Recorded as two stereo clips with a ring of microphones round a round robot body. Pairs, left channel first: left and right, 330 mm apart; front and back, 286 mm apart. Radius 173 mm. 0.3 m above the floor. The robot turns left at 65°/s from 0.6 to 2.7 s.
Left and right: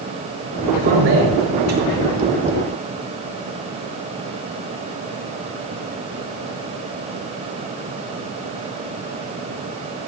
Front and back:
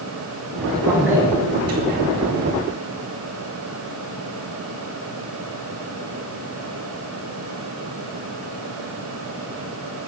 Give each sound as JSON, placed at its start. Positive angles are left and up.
{"t": 0.7, "sound": "a man speaking", "azimuth_deg": -70, "distance_m": 5.0}